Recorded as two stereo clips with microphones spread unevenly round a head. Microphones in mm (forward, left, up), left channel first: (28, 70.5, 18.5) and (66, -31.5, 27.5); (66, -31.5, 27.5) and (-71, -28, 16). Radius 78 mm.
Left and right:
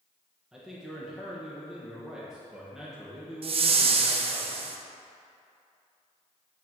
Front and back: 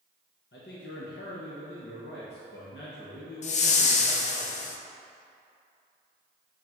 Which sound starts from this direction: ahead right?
A whoosh, at 3.4 s.